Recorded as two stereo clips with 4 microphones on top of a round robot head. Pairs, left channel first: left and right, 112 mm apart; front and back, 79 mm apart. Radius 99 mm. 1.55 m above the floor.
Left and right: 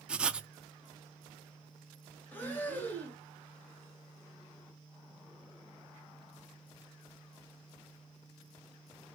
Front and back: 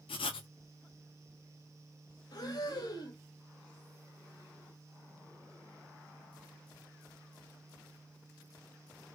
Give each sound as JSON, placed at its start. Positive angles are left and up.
{"t": 0.1, "sound": "writing", "azimuth_deg": -10, "distance_m": 0.5}
{"t": 2.3, "sound": "breathing", "azimuth_deg": 20, "distance_m": 1.0}